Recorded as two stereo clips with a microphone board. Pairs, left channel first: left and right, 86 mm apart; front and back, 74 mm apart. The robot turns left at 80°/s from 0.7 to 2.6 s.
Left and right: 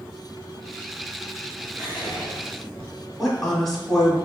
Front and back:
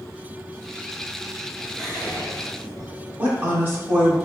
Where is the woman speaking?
175° left, 1.1 m.